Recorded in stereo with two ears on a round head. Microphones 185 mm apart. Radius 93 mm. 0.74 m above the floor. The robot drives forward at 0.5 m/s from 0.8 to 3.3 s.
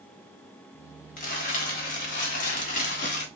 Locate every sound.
1.2 s crumpling: 40° left (ahead or behind), 1.5 m; by 3.2 s 35° left (ahead or behind), 1.5 m